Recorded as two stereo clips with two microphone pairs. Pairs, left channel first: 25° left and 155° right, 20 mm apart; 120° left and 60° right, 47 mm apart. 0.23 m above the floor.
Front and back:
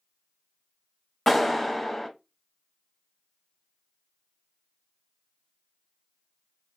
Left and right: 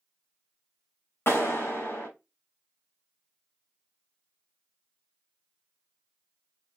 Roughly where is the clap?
Left.